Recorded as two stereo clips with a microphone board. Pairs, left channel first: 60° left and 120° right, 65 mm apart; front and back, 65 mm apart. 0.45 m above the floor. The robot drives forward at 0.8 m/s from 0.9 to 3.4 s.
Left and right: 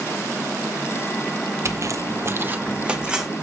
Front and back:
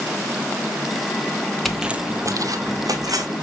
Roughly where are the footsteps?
Right.